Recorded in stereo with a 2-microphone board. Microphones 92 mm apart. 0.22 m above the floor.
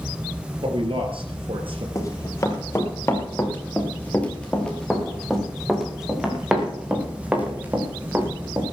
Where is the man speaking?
70° right (ahead or behind), 3.5 m; by 1.9 s 75° right (ahead or behind), 4.5 m.